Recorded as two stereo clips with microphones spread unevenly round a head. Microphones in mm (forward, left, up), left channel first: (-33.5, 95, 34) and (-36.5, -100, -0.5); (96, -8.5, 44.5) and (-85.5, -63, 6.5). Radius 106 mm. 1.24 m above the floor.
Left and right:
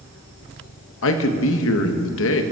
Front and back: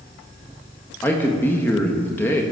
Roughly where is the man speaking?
Left.